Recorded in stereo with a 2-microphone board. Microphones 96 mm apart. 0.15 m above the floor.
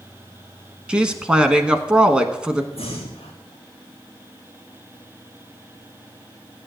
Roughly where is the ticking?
I don't hear ticking.